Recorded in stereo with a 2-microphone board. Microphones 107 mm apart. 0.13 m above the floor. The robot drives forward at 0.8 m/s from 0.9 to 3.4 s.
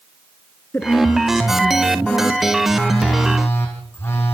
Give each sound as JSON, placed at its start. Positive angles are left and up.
{"t": 0.7, "sound": "a woman speaking", "side_deg": 20, "distance_m": 1.4}
{"t": 2.6, "sound": "a phone buzzing", "side_deg": 20, "distance_m": 5.0}